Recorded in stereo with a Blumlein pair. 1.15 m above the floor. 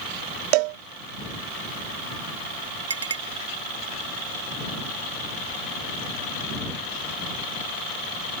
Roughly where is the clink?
Right.